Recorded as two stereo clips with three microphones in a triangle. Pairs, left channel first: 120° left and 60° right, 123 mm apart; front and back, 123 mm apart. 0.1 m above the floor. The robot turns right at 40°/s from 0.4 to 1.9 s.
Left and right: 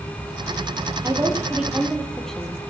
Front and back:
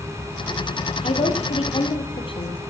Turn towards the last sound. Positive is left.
turn(degrees=35)